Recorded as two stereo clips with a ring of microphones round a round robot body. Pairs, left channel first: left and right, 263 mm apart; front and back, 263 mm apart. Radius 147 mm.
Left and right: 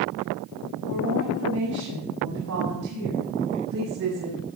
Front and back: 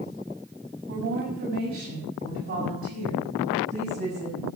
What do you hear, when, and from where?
0.9 s a woman speaking: 135° right, 6.5 m; by 4.4 s 115° right, 7.5 m